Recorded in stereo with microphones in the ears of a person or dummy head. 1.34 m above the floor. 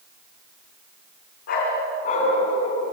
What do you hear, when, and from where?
1.5 s a dog barking: 60° left (ahead or behind), 4.5 m; by 2.8 s 35° left (ahead or behind), 4 m